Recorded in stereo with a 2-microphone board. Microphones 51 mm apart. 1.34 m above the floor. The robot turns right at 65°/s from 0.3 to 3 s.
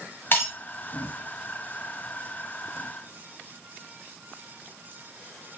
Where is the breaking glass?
35° left (ahead or behind), 1.4 m.